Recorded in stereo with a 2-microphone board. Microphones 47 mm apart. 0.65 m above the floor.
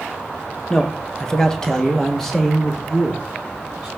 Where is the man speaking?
15° left (ahead or behind), 1.0 m; by 3.9 s centre (ahead or behind), 1.8 m.